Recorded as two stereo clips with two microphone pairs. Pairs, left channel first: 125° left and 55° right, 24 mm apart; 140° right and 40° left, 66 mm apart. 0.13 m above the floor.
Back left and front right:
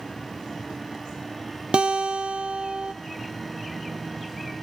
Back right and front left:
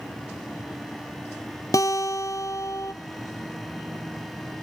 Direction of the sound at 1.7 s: 100° right.